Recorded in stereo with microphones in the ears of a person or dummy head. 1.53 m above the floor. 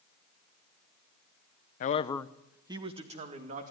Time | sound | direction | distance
1.8 | a man speaking | 45° left (ahead or behind) | 0.9 m